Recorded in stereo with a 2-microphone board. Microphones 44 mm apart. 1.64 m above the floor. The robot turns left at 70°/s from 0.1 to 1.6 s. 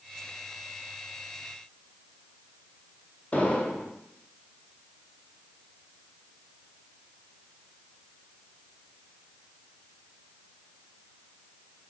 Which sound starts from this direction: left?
An explosion, at 3.3 s.